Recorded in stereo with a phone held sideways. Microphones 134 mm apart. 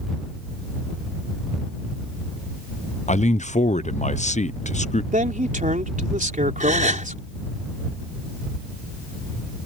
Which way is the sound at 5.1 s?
75° right (ahead or behind).